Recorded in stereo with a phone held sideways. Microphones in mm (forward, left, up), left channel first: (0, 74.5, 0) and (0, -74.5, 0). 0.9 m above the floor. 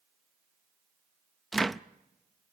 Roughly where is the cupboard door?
Centre.